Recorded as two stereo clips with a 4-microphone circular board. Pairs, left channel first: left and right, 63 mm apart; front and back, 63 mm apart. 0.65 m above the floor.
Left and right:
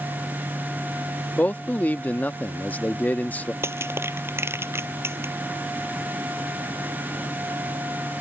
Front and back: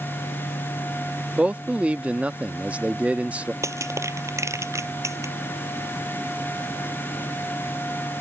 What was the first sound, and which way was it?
A man speaking, 130° left.